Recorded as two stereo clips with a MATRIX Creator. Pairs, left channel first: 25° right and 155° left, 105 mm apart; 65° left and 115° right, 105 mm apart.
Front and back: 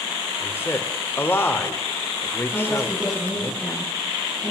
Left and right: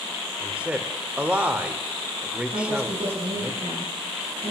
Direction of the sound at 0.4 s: 50° right.